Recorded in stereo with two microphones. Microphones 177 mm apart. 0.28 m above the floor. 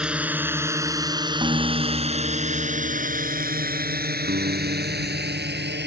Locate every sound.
0.0 s a drone: 5° right (ahead or behind); by 5.9 s 75° right (ahead or behind)
1.4 s a guitar: 30° right (ahead or behind)
4.3 s a guitar: 65° right (ahead or behind)